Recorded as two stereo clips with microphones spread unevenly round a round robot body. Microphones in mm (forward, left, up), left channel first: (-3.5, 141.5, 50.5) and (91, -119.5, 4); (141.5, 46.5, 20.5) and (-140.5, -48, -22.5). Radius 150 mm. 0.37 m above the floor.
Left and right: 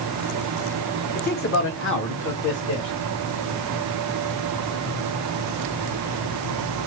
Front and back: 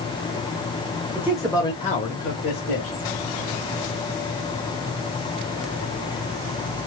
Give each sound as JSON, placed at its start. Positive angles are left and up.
{"t": 1.1, "sound": "a man speaking", "azimuth_deg": 155, "distance_m": 1.1}